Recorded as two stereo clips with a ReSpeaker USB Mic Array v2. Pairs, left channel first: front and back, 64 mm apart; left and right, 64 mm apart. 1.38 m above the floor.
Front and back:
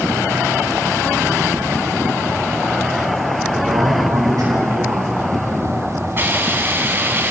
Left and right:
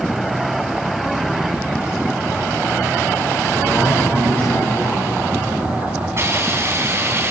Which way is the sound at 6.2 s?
130° right.